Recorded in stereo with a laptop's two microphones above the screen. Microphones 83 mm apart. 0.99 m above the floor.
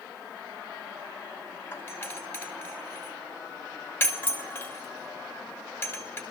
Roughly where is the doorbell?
Left.